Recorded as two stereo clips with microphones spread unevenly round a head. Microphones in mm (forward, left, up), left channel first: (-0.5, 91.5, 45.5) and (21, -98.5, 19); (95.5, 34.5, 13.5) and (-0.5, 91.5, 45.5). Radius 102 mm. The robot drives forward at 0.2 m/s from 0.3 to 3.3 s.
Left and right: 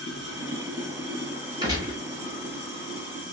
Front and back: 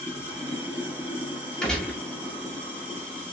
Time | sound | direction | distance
0.0 | running water | 85° right | 1.1 m
1.6 | a gunshot | 145° right | 0.7 m